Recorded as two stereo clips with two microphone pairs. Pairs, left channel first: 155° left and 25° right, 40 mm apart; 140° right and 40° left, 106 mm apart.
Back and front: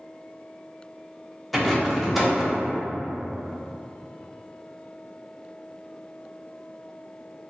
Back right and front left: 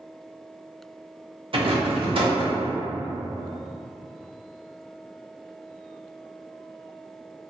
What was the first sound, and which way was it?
A rattle, 65° left.